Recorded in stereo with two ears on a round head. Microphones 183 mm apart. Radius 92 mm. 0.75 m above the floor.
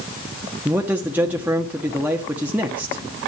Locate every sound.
0.7 s a man speaking: 10° right (ahead or behind), 1.1 m